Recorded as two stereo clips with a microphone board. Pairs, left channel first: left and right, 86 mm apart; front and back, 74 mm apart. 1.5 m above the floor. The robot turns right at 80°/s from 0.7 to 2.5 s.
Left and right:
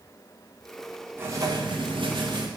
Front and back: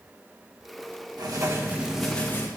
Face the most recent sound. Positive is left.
turn(degrees=-50)